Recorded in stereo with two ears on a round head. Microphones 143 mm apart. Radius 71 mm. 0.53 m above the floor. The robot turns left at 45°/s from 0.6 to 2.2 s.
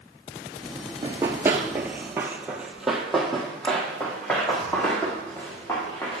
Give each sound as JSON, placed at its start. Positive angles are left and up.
{"t": 1.0, "sound": "running footsteps", "side_deg": -20, "distance_m": 0.6}